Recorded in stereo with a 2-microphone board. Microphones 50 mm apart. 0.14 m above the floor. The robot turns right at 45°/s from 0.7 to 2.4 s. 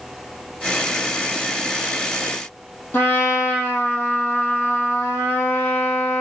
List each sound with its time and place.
2.9 s a trumpet: 40° left (ahead or behind), 2.5 m